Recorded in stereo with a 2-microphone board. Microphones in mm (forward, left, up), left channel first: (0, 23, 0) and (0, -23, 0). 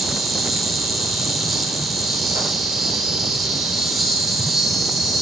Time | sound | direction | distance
0.0 | an insect | 5° right (ahead or behind) | 1.9 m